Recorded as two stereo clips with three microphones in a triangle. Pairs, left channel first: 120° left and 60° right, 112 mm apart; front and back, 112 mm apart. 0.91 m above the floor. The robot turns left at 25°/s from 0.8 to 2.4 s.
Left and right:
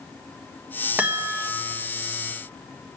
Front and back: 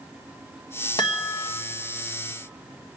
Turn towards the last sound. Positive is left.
turn(degrees=-25)